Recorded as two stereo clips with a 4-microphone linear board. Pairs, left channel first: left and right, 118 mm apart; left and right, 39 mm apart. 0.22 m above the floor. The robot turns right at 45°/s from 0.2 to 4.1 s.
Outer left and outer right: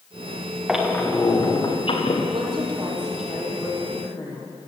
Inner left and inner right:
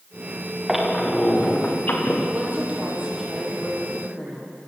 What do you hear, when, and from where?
0.7 s a squeak: 5° right, 5 m; by 2.2 s 60° left, 5 m
2.3 s a woman speaking: 45° right, 8 m; by 4.7 s 35° left, 8 m